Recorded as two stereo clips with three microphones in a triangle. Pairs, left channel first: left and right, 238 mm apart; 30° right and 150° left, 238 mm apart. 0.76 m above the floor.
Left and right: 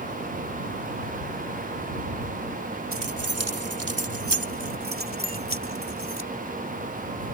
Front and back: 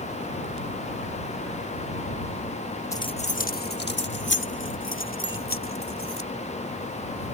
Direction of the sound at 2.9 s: 110° right.